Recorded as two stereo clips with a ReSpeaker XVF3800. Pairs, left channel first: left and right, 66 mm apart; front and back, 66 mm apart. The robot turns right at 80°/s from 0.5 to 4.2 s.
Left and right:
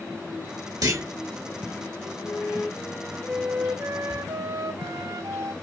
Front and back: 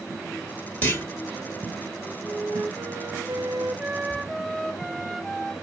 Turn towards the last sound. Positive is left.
turn(degrees=-90)